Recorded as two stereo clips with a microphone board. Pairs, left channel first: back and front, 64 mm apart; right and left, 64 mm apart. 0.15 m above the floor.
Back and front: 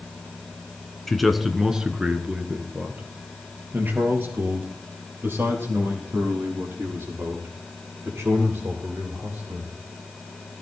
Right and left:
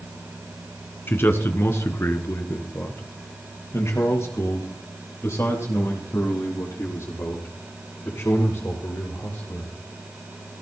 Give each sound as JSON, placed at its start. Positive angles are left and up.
{"t": 1.1, "sound": "a man speaking", "azimuth_deg": -95, "distance_m": 1.5}